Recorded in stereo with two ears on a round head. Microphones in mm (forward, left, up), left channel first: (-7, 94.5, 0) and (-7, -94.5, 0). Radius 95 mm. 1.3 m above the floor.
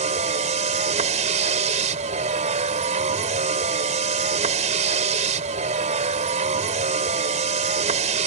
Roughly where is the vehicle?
Right.